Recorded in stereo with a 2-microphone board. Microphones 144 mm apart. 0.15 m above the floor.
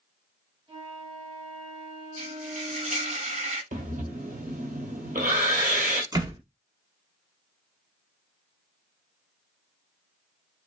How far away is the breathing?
About 1.2 m.